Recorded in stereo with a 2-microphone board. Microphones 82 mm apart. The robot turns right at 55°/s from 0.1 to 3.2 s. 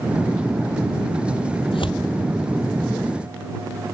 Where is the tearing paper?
75° left (ahead or behind); by 2.1 s 65° left (ahead or behind).